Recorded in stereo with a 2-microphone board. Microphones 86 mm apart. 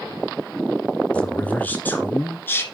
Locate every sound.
1.1 s a man speaking: 15° left (ahead or behind), 1.4 m; by 2.6 s 25° left (ahead or behind), 1.8 m